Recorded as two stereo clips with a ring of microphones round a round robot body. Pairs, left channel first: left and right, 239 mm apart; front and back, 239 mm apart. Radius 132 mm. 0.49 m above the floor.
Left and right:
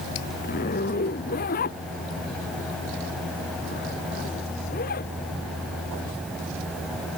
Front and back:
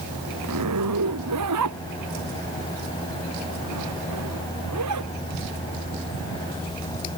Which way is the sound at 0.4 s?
150° left.